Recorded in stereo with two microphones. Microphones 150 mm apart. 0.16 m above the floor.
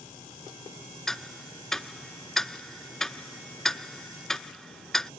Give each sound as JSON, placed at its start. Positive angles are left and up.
{"t": 1.1, "sound": "ticking", "side_deg": 0}